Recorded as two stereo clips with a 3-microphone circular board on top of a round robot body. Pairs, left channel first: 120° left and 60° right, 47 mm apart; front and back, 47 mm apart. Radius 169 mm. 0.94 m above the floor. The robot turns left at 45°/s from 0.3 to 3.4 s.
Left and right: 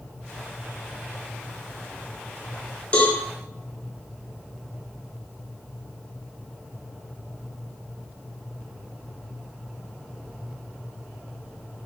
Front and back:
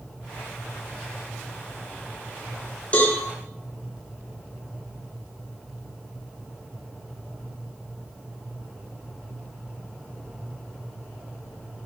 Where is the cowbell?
60° left, 3.5 m; by 3.2 s 50° left, 3.5 m.